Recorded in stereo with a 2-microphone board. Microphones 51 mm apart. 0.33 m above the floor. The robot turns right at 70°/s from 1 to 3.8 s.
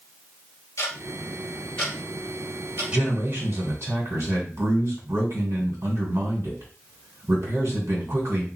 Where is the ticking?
75° left (ahead or behind), 2.5 m; by 2.8 s 55° right (ahead or behind), 2.5 m.